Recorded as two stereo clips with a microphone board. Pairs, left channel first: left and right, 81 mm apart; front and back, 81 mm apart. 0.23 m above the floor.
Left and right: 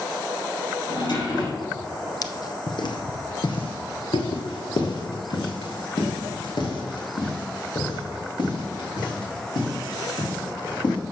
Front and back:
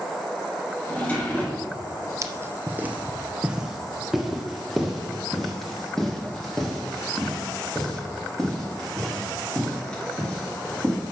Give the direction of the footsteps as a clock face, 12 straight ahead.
8 o'clock.